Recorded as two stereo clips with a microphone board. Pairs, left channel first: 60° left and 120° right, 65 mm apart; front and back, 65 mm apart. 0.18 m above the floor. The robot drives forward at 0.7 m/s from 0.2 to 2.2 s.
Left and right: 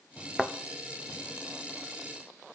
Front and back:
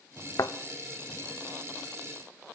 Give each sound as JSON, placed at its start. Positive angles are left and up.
{"t": 0.4, "sound": "a thud", "azimuth_deg": -35, "distance_m": 0.6}